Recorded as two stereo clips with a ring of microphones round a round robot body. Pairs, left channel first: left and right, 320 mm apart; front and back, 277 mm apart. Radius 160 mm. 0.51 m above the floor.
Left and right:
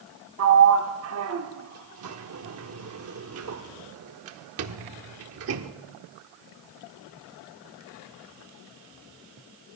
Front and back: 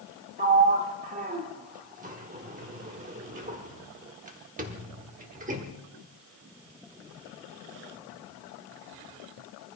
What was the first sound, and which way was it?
A sliding door, 120° right.